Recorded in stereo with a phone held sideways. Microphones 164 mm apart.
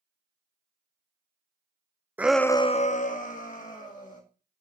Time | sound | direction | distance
2.2 | a shout | 10° right (ahead or behind) | 0.6 m